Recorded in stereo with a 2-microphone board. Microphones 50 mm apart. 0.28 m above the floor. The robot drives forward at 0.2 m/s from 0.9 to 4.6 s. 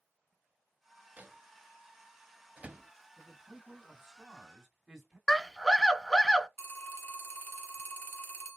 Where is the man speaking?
5° right (ahead or behind), 2 m.